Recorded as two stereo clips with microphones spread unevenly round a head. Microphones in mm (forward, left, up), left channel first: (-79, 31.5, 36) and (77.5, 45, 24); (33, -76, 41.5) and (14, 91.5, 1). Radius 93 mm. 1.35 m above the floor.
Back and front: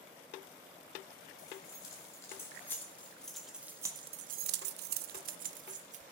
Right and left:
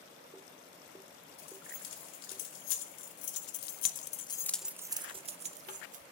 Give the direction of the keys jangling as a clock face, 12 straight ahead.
3 o'clock.